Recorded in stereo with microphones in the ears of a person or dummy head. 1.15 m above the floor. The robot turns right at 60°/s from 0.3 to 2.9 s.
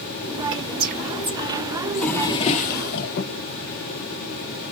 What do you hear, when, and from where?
0.5 s whispering: 60° right (ahead or behind), 1.1 m; by 2.8 s 60° left (ahead or behind), 1.1 m
1.9 s a drawer: straight ahead, 0.6 m; by 3.4 s 60° left, 0.6 m